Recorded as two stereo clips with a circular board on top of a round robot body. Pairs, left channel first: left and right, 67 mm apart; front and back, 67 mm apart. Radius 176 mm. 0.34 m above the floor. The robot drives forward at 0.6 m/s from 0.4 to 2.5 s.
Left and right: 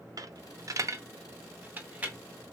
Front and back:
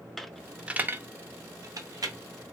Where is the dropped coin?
85° right, 0.6 m; by 2.2 s 160° right, 1.2 m.